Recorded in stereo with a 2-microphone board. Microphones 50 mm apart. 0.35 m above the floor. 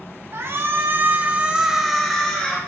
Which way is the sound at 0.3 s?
60° right (ahead or behind).